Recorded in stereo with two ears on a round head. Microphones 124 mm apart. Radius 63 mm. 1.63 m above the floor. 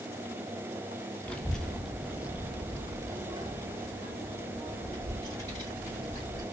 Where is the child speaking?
10° left (ahead or behind), 0.9 m; by 6.4 s 30° right (ahead or behind), 2.5 m.